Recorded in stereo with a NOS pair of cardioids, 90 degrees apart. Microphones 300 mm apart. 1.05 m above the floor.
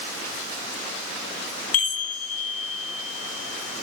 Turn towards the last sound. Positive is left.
turn(degrees=50)